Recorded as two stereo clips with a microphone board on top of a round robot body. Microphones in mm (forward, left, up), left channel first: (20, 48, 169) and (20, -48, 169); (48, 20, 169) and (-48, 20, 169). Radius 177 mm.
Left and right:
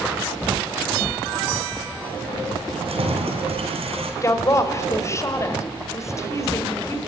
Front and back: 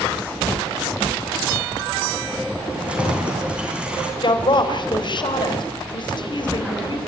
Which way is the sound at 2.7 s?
100° right.